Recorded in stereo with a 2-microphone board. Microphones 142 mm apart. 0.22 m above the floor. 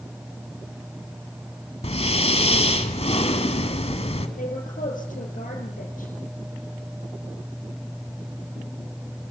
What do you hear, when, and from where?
1.8 s breathing: 45° left (ahead or behind), 1.7 m
4.4 s a woman speaking: 70° left (ahead or behind), 4 m